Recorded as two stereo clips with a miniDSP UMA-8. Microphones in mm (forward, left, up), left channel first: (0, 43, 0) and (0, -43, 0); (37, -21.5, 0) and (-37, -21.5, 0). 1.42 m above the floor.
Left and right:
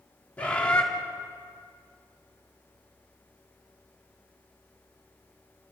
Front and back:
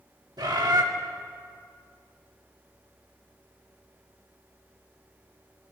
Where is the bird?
165° left, 3 m.